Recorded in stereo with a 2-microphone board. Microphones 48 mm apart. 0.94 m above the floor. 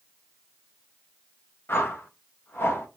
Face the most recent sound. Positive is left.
turn(degrees=55)  # may be behind; listen again after turning